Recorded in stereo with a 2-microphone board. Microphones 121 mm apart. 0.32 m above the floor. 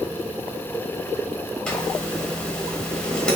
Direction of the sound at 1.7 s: 10° left (ahead or behind).